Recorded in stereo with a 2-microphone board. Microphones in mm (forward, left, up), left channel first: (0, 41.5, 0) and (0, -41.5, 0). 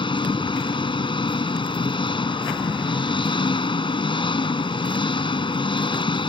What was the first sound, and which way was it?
An engine running, 85° left.